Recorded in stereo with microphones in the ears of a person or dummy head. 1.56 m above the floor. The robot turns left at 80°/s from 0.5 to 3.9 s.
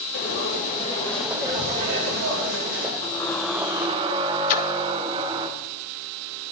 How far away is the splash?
About 0.6 m.